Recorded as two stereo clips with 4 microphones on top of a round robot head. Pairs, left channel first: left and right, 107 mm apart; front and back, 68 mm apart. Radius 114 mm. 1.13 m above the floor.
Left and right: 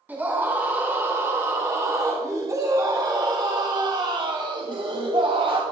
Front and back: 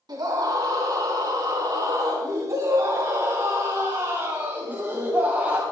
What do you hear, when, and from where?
0.1 s a scream: 160° right, 4 m; by 5.6 s 115° right, 2.5 m